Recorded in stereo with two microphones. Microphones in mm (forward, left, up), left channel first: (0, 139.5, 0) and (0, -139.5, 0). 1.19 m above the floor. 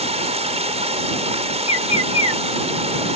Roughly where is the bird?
Left.